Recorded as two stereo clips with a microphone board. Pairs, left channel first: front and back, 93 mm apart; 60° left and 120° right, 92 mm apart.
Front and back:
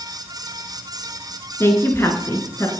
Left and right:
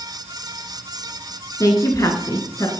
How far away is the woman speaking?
About 1.4 m.